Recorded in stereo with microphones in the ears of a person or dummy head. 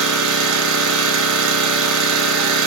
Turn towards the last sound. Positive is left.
turn(degrees=-80)